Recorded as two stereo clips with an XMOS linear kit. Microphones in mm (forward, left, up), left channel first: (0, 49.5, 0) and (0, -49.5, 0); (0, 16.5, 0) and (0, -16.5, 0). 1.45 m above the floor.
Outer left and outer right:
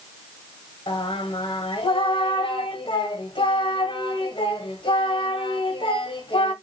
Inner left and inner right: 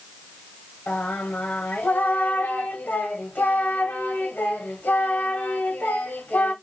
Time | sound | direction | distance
0.9 | singing | 60° left (ahead or behind) | 1.1 m